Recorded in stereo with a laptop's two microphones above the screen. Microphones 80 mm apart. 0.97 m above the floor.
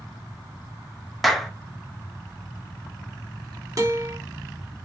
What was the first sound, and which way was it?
A clap, centre (ahead or behind).